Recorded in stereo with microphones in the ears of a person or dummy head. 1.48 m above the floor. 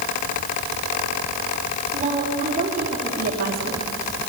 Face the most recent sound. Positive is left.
turn(degrees=-55)  # may be behind; listen again after turning